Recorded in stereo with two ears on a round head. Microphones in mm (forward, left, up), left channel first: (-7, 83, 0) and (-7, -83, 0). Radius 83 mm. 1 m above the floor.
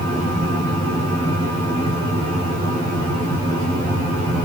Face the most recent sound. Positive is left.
No sound to turn to.